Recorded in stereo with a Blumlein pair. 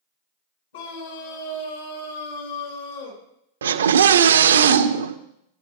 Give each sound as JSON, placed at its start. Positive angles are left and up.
{"t": 0.7, "sound": "a scream", "azimuth_deg": 60, "distance_m": 5.5}
{"t": 3.6, "sound": "a scream", "azimuth_deg": -65, "distance_m": 1.0}